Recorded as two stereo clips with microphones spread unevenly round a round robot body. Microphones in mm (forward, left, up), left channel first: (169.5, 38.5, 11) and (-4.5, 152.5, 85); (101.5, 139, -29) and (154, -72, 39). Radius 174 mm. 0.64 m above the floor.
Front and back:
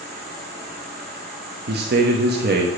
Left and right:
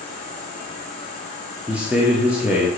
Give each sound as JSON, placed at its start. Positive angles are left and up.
{"t": 0.0, "sound": "an insect", "azimuth_deg": -150, "distance_m": 4.5}
{"t": 1.7, "sound": "a man speaking", "azimuth_deg": 170, "distance_m": 1.3}